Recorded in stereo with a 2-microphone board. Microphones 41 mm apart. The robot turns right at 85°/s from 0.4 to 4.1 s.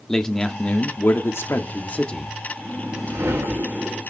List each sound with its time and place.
0.1 s a man speaking: 15° left, 1.3 m; by 2.3 s 175° left, 1.3 m
2.6 s a whoosh: 150° right, 2.5 m; by 4.0 s 30° right, 2.5 m